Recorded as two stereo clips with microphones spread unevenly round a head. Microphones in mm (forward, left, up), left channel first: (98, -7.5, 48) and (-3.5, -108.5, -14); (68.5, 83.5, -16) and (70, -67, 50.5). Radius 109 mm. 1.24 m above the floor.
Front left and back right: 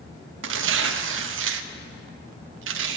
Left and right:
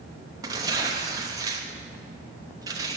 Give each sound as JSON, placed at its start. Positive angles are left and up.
{"t": 0.4, "sound": "tearing paper", "azimuth_deg": -145, "distance_m": 0.7}